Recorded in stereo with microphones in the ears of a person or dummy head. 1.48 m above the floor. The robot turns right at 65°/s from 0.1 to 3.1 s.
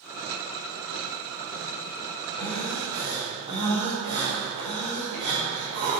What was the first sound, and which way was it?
Breathing, 160° left.